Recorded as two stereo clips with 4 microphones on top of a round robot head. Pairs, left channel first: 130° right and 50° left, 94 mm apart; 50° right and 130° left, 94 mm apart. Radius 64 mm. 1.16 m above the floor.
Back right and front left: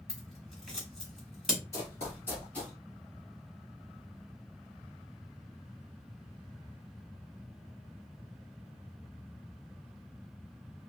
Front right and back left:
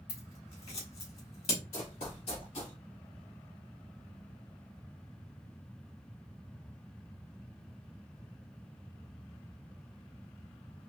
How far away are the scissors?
About 2 m.